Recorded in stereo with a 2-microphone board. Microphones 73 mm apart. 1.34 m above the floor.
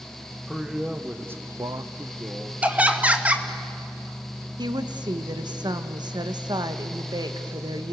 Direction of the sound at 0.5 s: 5° right (ahead or behind).